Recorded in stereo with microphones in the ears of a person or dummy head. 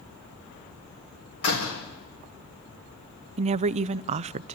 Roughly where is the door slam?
Left.